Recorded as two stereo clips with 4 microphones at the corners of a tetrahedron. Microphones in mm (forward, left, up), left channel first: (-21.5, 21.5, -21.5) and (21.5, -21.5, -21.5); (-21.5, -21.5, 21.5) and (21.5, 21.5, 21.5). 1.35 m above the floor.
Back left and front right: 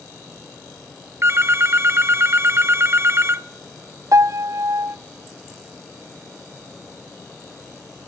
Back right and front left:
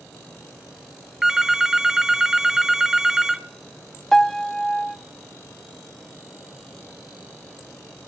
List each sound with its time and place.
1.2 s a phone ringing: 35° right, 0.6 m
4.1 s a piano: 50° right, 0.5 m